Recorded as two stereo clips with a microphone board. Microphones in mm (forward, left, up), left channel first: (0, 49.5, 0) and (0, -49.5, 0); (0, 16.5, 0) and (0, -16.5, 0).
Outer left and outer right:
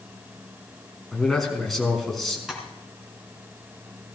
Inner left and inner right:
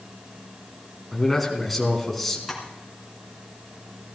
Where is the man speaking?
5° left (ahead or behind), 3 m.